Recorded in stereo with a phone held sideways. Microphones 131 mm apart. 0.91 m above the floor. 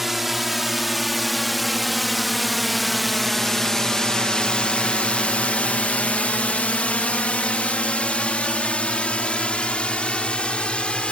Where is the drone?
5° right (ahead or behind); by 11.1 s 10° left (ahead or behind).